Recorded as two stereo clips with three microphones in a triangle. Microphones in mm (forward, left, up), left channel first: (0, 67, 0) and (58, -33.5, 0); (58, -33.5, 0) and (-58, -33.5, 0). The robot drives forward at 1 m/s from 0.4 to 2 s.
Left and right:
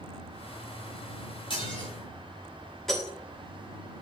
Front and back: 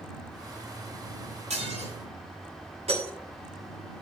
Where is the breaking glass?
155° right, 7 m.